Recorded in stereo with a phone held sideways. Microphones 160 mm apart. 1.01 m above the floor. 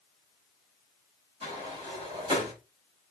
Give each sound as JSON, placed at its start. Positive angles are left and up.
{"t": 1.4, "sound": "a sliding door", "side_deg": -30, "distance_m": 5.0}